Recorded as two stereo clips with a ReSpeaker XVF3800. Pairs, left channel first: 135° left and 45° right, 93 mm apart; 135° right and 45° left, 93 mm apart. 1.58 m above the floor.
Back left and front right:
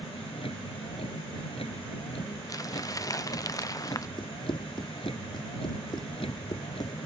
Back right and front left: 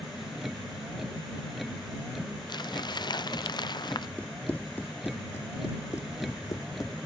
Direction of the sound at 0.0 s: 135° left.